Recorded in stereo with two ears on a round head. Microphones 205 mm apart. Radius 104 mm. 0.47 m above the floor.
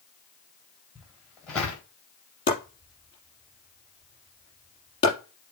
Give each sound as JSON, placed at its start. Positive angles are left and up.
{"t": 0.9, "sound": "footsteps", "side_deg": 5, "distance_m": 4.5}
{"t": 2.5, "sound": "chopping", "side_deg": 20, "distance_m": 4.0}